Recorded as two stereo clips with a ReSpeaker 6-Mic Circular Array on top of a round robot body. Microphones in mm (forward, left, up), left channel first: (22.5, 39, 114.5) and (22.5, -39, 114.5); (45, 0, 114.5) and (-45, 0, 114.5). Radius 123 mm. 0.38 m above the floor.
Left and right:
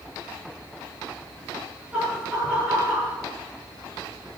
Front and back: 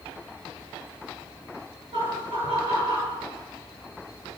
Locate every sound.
1.9 s laughter: 165° right, 9.5 m